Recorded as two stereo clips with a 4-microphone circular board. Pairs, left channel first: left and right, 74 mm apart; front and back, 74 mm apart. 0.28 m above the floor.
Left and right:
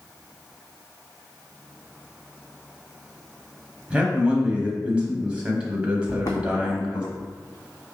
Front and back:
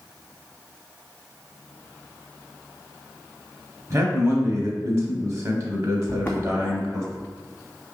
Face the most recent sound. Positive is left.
turn(degrees=125)